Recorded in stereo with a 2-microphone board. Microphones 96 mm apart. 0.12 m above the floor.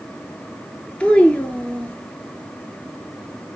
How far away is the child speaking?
About 1.1 m.